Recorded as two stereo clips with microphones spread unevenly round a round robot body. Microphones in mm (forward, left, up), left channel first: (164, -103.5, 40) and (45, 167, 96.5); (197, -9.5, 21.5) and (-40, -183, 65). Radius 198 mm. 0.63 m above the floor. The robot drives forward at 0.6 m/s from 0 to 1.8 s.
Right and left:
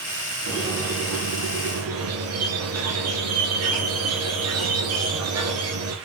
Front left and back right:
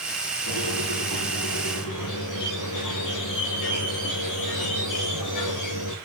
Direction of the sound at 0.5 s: 70° left.